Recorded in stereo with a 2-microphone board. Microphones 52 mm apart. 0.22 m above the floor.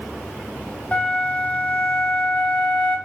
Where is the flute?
30° left (ahead or behind), 1.3 m.